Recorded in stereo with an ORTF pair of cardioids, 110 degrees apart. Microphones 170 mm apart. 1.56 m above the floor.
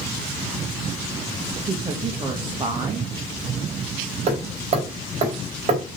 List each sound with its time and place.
1.7 s a woman speaking: 30° right, 2 m
4.3 s hammering: 45° right, 4.5 m